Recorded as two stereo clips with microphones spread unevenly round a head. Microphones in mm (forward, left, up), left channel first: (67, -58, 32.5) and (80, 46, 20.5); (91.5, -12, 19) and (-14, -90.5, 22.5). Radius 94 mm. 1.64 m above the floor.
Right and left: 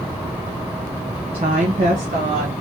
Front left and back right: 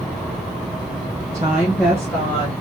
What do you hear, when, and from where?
1.3 s a woman speaking: 145° left, 0.8 m; by 2.5 s 110° left, 1.5 m